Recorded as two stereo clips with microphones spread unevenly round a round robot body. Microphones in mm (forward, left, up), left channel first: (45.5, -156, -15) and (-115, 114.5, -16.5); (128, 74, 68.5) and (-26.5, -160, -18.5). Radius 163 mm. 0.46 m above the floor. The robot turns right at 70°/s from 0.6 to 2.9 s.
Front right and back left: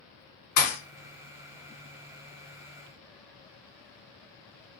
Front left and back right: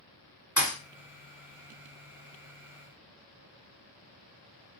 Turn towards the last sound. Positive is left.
turn(degrees=125)